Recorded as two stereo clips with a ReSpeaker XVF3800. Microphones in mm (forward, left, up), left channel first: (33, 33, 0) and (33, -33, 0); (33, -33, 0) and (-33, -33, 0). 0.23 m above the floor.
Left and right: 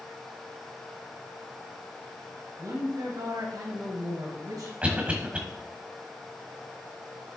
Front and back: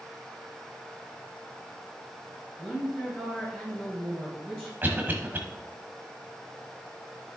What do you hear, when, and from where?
2.6 s a woman speaking: 70° right, 3 m
4.8 s a cough: 145° right, 1.3 m